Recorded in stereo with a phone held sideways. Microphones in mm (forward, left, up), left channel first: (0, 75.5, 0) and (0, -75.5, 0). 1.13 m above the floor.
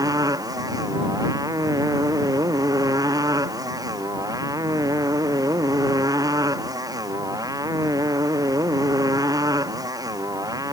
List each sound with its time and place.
0.0 s a motorcycle: 25° right (ahead or behind)